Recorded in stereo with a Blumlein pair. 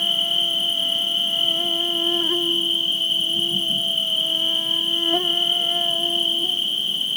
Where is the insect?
5° left, 1.2 m.